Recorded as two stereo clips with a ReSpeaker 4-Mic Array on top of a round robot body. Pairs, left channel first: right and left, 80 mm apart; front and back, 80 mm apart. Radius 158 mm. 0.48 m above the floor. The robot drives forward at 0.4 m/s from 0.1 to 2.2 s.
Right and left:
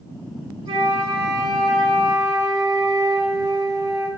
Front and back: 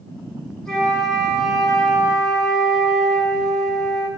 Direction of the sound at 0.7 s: 80° left.